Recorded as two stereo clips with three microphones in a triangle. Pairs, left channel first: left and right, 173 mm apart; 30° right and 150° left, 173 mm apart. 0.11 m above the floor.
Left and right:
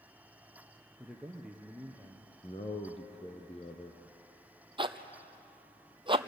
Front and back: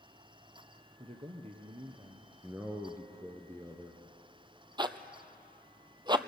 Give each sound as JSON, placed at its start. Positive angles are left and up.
{"t": 1.0, "sound": "a man speaking", "azimuth_deg": -175, "distance_m": 1.6}
{"t": 2.4, "sound": "a man speaking", "azimuth_deg": 85, "distance_m": 1.6}
{"t": 4.8, "sound": "a zipper", "azimuth_deg": -145, "distance_m": 0.8}